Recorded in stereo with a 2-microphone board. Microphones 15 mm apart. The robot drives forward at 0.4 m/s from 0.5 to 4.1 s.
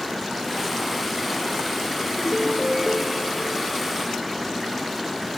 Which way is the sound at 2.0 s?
30° right (ahead or behind).